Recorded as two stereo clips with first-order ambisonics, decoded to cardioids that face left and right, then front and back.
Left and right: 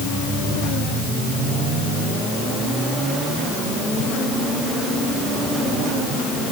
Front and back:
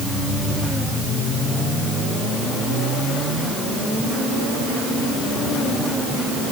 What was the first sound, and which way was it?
Only background noise.